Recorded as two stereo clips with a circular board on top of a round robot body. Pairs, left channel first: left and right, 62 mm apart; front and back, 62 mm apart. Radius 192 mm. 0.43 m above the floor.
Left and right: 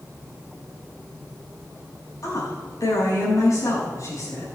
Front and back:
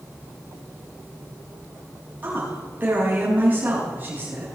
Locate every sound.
2.2 s a woman speaking: 120° left, 5 m